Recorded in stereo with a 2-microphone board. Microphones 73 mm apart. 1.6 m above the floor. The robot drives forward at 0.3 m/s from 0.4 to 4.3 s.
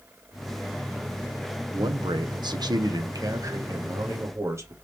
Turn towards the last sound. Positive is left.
turn(degrees=-40)  # may be behind; listen again after turning